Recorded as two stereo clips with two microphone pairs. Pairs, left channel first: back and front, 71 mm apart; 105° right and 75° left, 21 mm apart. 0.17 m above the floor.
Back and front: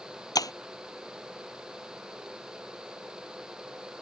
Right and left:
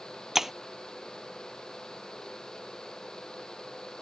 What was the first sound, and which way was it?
Breaking glass, 150° left.